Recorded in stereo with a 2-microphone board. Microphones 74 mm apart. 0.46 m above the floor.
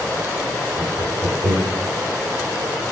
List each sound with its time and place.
0.8 s laughter: 65° right (ahead or behind), 6 m